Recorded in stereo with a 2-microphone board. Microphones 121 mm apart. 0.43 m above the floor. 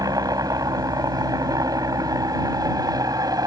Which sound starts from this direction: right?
A helicopter, at 0.0 s.